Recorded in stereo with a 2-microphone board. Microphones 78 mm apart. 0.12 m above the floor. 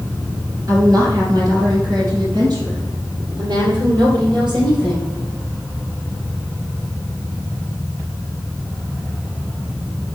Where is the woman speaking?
45° right (ahead or behind), 2.5 m; by 5.1 s 65° right (ahead or behind), 4.5 m.